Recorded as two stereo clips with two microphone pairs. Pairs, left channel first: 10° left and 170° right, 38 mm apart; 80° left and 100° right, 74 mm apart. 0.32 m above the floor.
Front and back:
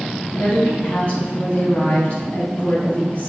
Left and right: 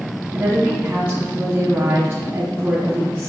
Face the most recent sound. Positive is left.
turn(degrees=-35)